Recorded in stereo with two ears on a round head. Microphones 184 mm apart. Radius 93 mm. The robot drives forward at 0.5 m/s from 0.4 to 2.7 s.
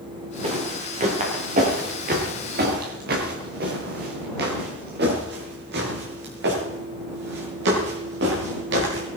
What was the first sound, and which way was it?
Footsteps, 30° right (ahead or behind).